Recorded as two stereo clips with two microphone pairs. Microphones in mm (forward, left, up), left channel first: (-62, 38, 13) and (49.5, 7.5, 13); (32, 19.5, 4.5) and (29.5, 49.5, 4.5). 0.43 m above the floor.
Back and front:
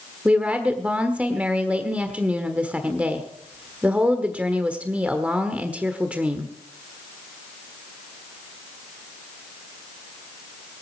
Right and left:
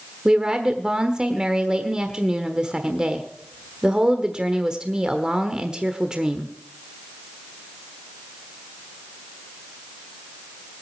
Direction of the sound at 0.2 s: 55° left.